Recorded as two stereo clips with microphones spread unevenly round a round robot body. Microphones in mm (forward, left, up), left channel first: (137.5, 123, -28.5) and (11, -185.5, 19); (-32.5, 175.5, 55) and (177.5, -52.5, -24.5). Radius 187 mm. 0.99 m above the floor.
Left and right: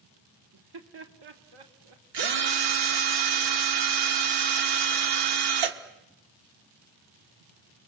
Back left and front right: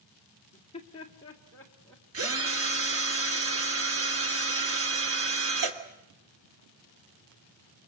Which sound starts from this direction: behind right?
Laughter, at 0.5 s.